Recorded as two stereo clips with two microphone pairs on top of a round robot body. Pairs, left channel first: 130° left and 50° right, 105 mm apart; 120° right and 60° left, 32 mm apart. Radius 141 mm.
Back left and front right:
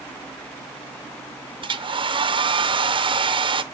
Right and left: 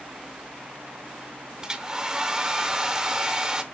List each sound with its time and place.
1.6 s a hair dryer: 10° right, 0.6 m